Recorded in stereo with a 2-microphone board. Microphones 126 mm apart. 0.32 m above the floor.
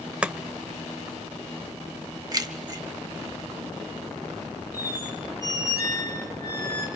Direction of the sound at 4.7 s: 25° left (ahead or behind).